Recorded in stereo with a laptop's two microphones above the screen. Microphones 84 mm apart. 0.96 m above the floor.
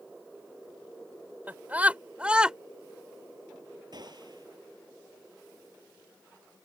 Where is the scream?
20° right (ahead or behind); by 2.6 s 10° right (ahead or behind).